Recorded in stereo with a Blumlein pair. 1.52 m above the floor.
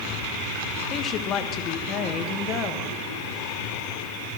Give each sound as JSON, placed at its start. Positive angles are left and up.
{"t": 0.9, "sound": "a woman speaking", "azimuth_deg": 30, "distance_m": 1.2}